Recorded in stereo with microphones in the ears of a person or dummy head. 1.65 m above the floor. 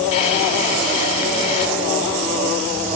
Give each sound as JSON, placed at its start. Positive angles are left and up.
{"t": 0.1, "sound": "a drawer", "side_deg": 40, "distance_m": 9.0}